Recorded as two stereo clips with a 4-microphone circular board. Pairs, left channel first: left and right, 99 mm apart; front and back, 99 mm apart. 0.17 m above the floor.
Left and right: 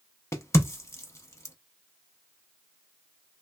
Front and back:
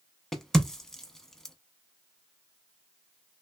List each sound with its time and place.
0.3 s a crack: 80° left, 0.5 m